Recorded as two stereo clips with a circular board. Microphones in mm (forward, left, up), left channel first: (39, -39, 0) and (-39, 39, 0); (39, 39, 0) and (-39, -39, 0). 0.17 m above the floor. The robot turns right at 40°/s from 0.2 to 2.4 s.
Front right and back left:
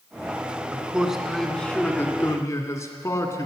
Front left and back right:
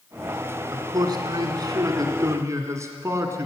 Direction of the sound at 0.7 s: 160° right.